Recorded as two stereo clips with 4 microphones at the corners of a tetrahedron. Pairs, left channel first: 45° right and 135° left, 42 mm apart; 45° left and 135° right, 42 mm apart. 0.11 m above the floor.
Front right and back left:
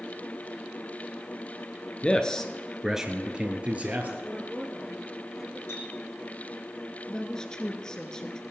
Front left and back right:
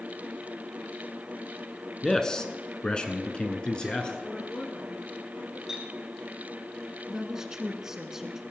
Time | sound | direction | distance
2.0 | a man speaking | 15° right | 1.2 m
4.2 | a woman speaking | 40° left | 1.7 m
5.7 | a clink | 55° right | 3 m
7.1 | a woman speaking | 85° right | 1.1 m